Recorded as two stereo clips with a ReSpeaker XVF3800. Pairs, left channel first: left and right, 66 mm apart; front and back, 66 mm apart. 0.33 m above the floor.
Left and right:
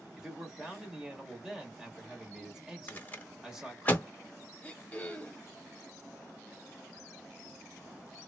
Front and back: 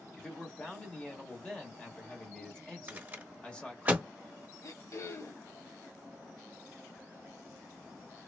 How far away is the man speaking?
About 0.9 m.